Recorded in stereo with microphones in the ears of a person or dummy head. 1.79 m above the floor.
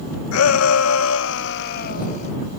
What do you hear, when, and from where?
0.3 s a shout: 80° left; by 2.3 s 40° left (ahead or behind)